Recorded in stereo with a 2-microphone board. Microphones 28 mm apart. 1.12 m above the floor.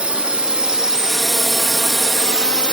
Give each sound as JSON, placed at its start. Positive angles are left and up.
{"t": 0.0, "sound": "a drone", "side_deg": -40}